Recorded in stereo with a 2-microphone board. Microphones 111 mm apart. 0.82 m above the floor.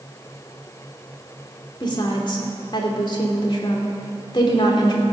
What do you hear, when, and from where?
1.8 s a woman speaking: 40° left (ahead or behind), 2.5 m